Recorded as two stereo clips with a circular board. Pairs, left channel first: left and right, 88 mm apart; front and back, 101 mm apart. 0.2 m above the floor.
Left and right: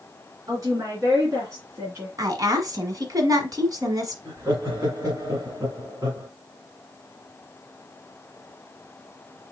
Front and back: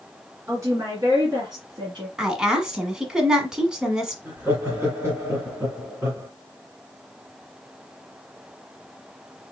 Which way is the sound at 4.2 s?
125° right.